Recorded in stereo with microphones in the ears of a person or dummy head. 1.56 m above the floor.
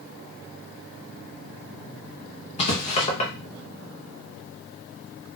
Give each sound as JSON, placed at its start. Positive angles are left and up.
{"t": 2.6, "sound": "writing", "side_deg": 35, "distance_m": 0.7}